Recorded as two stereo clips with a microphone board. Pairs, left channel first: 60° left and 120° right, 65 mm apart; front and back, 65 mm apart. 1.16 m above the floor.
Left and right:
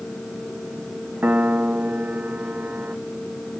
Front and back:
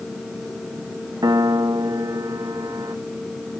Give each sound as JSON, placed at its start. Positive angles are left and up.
{"t": 1.2, "sound": "a piano", "azimuth_deg": 175}